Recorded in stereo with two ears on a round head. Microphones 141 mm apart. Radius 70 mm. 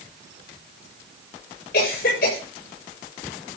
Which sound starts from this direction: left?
A cough, at 1.7 s.